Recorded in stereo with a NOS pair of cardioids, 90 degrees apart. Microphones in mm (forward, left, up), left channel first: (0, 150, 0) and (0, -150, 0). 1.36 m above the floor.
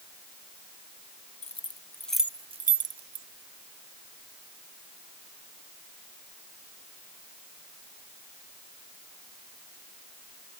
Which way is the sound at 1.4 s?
20° left.